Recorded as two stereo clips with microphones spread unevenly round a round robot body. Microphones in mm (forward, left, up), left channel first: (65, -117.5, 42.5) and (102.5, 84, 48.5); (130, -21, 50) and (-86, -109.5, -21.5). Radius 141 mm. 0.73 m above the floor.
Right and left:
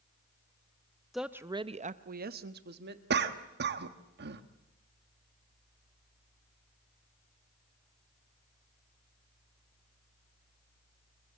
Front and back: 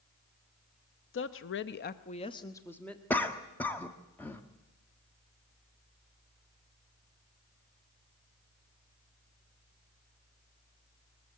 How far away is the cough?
About 1.2 m.